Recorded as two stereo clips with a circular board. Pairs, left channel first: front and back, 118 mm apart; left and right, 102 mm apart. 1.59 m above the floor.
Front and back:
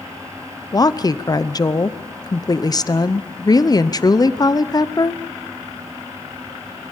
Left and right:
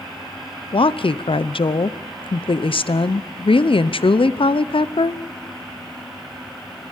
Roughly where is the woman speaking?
Ahead left.